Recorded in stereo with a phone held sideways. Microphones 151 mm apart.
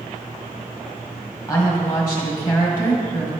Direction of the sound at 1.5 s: 15° left (ahead or behind).